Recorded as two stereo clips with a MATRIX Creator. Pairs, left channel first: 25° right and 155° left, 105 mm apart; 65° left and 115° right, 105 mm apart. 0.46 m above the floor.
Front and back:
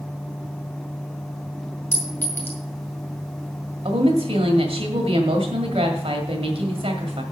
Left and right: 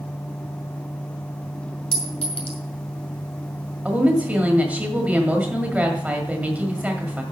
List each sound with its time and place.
1.9 s a clink: 50° left, 2 m
3.9 s a woman speaking: 170° left, 1.8 m